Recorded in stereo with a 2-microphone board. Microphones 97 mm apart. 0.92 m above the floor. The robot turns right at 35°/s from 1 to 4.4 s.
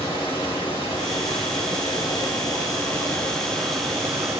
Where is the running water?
85° left, 2.5 m; by 4.4 s 155° right, 2.5 m.